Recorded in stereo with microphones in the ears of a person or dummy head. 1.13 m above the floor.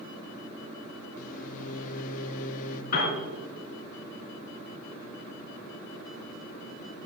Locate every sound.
1.2 s a microwave: 50° left (ahead or behind), 0.9 m
2.9 s a piano: 50° left (ahead or behind), 3.5 m